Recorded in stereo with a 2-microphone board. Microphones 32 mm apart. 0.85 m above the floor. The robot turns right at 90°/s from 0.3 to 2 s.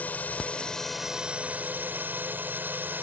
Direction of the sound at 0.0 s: 120° left.